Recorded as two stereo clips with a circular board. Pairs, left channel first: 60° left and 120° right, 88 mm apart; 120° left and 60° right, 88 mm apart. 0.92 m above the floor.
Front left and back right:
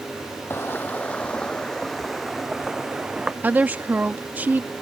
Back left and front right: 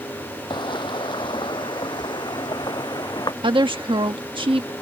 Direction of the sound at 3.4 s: 50° right.